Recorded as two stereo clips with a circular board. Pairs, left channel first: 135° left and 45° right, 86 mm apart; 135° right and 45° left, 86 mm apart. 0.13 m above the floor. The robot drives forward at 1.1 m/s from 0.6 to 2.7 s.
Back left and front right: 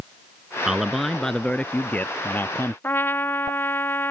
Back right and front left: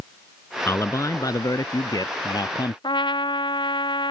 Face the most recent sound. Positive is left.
turn(degrees=-160)